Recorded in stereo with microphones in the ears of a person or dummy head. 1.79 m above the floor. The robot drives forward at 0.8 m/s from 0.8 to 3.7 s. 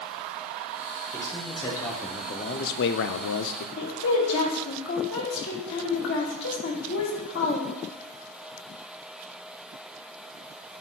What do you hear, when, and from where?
1.1 s a man speaking: 15° left (ahead or behind), 1.7 m; by 3.7 s 45° left (ahead or behind), 0.7 m
3.8 s a woman speaking: 70° left (ahead or behind), 2.5 m